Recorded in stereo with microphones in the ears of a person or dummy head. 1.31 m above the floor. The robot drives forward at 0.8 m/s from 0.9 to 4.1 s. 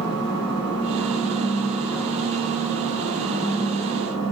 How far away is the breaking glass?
I don't hear breaking glass.